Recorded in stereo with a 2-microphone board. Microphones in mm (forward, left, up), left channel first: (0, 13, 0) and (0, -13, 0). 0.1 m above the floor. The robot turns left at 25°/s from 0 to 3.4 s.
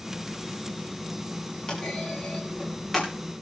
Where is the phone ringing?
No phone ringing in this recording.